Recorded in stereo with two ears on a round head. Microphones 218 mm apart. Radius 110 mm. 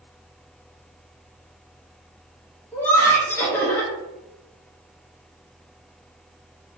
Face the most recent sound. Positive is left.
turn(degrees=10)  # may be behind; listen again after turning